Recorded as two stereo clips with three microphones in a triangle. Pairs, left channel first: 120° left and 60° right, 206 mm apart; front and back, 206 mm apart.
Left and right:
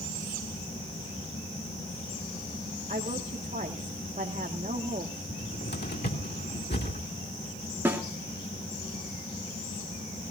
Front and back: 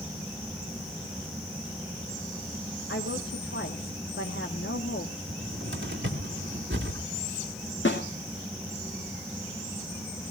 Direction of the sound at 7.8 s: 20° left.